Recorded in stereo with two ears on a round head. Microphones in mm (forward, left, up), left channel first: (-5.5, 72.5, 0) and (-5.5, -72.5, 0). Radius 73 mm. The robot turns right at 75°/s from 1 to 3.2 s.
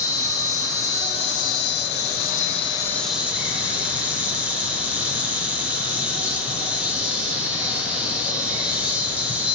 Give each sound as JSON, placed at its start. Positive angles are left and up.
{"t": 0.0, "sound": "an insect", "azimuth_deg": 25, "distance_m": 1.1}